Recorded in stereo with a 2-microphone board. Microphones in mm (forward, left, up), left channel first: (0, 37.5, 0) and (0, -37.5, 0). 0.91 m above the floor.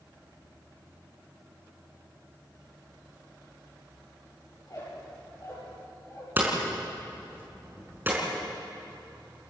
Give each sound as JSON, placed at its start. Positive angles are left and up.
{"t": 4.6, "sound": "a squeak", "side_deg": 45, "distance_m": 9.5}
{"t": 6.4, "sound": "hammering", "side_deg": -25, "distance_m": 5.0}